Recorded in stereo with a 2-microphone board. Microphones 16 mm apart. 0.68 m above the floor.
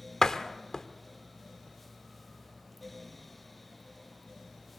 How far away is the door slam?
About 1.4 m.